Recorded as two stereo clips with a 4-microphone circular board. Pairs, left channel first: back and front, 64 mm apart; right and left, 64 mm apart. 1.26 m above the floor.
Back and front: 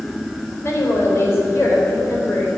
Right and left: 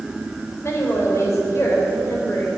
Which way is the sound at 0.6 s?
135° right.